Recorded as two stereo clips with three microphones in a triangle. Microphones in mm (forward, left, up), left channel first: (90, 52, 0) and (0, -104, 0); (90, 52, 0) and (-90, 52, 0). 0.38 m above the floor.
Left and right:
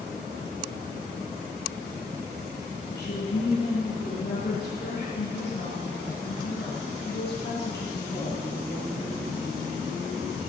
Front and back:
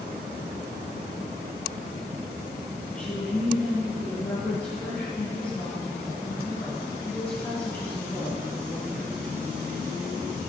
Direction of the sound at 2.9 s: 80° left.